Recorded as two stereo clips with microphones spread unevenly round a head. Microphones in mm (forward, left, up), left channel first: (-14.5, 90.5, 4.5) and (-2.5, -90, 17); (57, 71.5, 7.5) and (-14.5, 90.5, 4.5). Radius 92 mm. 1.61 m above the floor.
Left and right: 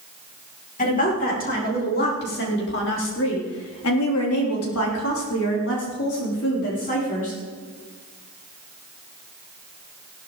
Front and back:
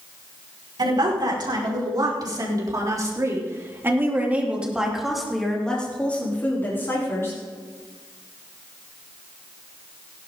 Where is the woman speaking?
145° left, 6 m; by 7.4 s 40° left, 5 m.